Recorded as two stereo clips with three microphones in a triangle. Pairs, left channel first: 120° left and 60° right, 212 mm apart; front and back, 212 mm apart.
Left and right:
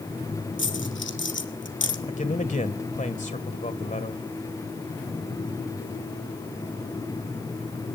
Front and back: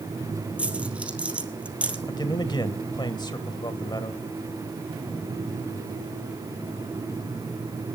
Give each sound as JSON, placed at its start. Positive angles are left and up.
{"t": 0.6, "sound": "a dropped coin", "azimuth_deg": 95, "distance_m": 1.7}
{"t": 2.1, "sound": "a man speaking", "azimuth_deg": 65, "distance_m": 2.0}